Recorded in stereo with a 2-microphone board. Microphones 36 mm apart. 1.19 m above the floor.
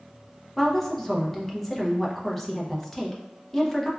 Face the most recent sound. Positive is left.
turn(degrees=5)  # may be behind; listen again after turning